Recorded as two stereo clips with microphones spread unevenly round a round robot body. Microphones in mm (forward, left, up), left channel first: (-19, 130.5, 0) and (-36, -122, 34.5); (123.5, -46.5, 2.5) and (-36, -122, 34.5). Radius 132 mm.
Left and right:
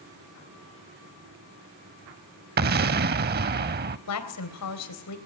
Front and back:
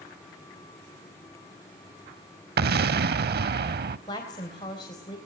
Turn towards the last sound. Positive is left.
turn(degrees=95)